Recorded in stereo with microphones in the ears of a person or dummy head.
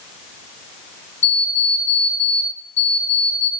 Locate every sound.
1.2 s an alarm clock: 10° left (ahead or behind), 1.0 m